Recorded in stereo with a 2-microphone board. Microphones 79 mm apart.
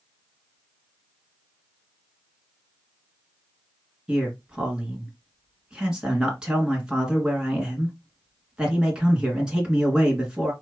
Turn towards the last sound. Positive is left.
turn(degrees=-10)  # may be behind; listen again after turning